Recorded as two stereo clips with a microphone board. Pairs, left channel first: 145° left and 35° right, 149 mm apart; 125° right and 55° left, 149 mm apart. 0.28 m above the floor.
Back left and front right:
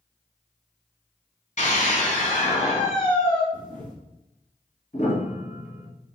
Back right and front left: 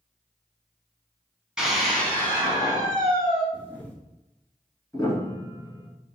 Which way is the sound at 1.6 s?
140° left.